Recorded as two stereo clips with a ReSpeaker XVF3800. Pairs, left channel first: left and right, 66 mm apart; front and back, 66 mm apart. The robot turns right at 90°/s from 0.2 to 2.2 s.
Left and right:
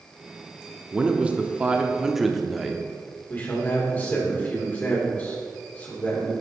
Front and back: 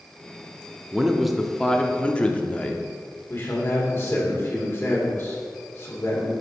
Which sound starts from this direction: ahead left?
A man speaking, at 3.3 s.